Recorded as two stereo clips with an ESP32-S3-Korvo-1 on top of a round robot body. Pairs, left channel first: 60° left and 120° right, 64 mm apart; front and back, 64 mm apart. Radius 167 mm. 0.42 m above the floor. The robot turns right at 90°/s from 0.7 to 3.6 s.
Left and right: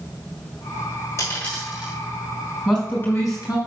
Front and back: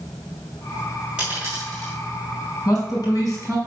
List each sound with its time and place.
1.2 s a dropped coin: 105° left, 6 m; by 1.9 s 170° left, 6 m
2.6 s a man speaking: 30° right, 4.5 m; by 3.6 s 50° left, 4.5 m